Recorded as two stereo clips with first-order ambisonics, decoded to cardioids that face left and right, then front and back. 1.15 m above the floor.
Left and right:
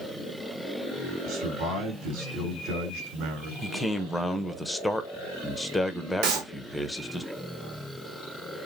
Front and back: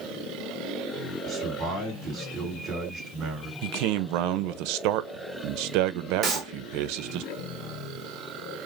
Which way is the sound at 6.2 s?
110° right.